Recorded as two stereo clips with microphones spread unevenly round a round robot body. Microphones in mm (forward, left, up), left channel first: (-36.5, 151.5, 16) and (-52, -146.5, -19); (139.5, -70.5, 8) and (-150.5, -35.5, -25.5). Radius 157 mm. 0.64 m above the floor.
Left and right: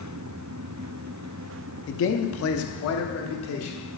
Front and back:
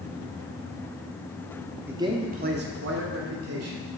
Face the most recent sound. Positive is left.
turn(degrees=135)